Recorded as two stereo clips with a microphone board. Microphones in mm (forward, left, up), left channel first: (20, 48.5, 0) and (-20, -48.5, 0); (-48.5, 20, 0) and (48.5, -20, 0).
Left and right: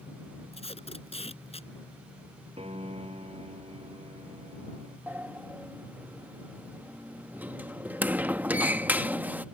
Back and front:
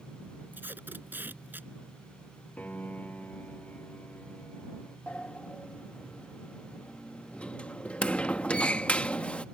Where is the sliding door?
145° right.